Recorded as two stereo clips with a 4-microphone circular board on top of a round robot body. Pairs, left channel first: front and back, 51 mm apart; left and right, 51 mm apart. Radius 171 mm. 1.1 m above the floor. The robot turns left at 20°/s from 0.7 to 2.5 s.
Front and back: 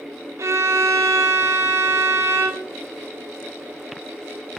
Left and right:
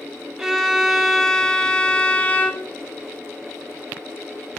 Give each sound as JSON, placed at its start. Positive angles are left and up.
{"t": 0.4, "sound": "a violin", "azimuth_deg": -170, "distance_m": 1.4}